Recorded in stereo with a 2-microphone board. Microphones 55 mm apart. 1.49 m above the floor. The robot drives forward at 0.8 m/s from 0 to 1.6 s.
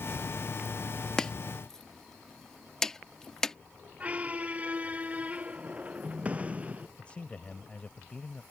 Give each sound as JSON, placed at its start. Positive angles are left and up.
{"t": 1.2, "sound": "chopping", "side_deg": 15}
{"t": 4.0, "sound": "a squeak", "side_deg": -25}
{"t": 7.0, "sound": "a man speaking", "side_deg": 20}